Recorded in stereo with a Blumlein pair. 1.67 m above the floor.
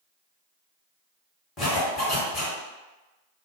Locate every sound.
1.6 s a zipper: 20° left, 1.3 m